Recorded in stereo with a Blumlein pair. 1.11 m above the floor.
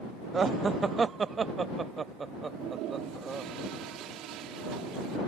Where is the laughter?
15° right.